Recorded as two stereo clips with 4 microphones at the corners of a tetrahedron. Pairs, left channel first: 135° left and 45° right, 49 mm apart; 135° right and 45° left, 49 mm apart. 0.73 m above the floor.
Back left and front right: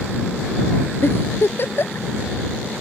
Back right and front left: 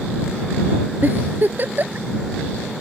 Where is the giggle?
95° left.